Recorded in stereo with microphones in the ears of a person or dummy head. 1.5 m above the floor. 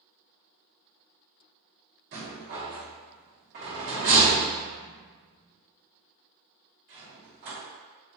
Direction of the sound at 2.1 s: 45° right (ahead or behind).